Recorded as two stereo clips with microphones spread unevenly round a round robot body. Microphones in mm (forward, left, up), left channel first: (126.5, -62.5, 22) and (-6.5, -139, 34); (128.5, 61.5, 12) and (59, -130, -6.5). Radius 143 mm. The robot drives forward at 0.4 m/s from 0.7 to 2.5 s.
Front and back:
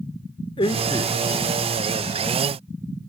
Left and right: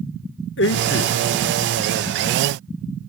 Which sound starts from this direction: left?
A man speaking, at 0.6 s.